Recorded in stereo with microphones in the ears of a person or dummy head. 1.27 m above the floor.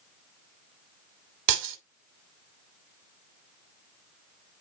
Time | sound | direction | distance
1.5 | breaking glass | 75° right (ahead or behind) | 2.5 m